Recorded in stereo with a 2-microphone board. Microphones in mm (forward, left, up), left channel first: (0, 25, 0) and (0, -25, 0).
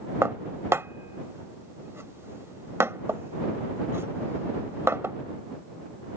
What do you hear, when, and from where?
0.2 s dishes clattering: 65° right (ahead or behind)